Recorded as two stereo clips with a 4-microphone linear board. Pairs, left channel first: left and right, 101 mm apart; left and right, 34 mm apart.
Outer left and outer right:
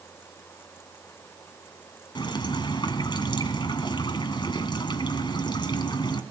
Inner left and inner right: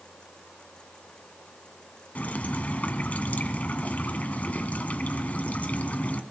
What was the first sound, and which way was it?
Dripping, 50° left (ahead or behind).